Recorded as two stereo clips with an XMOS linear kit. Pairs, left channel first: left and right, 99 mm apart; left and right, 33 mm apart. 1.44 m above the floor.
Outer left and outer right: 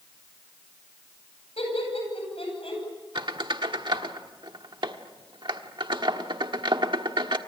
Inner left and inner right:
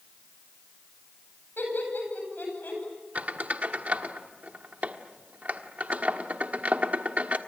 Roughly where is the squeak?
Right.